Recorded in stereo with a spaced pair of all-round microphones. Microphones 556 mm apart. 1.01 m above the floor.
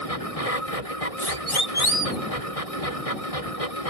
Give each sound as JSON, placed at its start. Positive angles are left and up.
{"t": 0.0, "sound": "a machine running", "side_deg": 85}
{"t": 1.2, "sound": "a siren", "side_deg": 60}